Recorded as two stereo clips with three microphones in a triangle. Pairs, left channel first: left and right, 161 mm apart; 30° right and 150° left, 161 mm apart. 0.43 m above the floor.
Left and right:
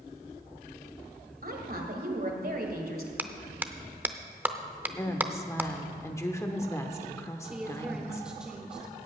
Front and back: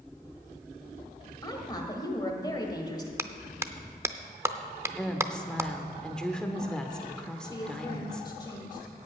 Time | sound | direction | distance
1.4 | a woman speaking | 95° right | 1.8 m
3.2 | a clap | 155° right | 0.5 m
5.0 | a woman speaking | 50° left | 0.9 m
7.4 | a woman speaking | 10° right | 1.1 m